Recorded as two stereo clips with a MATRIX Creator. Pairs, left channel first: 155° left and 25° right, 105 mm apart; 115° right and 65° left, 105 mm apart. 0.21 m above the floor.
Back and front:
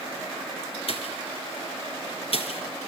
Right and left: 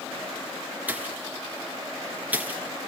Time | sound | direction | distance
0.9 | a pop | 145° left | 2.5 m